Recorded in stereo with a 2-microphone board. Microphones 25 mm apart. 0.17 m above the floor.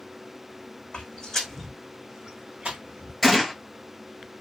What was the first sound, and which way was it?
Footsteps, 40° left (ahead or behind).